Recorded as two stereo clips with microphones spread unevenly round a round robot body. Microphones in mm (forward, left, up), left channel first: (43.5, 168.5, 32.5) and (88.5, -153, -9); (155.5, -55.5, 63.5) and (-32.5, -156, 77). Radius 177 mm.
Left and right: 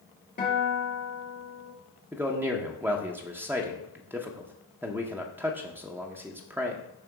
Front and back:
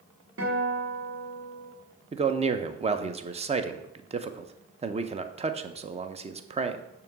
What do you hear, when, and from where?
0.4 s a guitar: 165° left, 1.8 m
2.1 s a man speaking: 135° right, 0.6 m